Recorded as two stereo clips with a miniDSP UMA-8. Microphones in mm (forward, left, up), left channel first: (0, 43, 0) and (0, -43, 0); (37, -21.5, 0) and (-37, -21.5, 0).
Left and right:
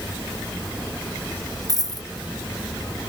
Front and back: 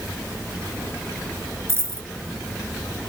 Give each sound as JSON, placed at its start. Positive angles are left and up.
{"t": 1.7, "sound": "a dropped coin", "azimuth_deg": -130}